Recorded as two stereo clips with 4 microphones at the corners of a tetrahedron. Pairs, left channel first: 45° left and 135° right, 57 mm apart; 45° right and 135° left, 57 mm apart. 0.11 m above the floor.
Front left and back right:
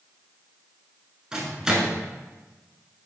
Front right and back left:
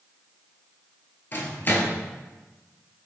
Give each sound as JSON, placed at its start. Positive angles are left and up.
{"t": 1.3, "sound": "a microwave", "azimuth_deg": -60, "distance_m": 1.1}